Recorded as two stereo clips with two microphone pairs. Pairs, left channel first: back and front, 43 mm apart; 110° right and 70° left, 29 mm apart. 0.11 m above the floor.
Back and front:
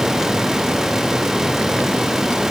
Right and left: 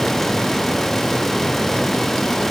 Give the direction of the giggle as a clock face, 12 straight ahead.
No giggle in this recording.